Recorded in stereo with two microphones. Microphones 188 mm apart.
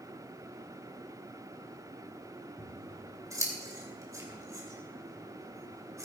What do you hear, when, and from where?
2.6 s scissors: 15° right (ahead or behind), 2.5 m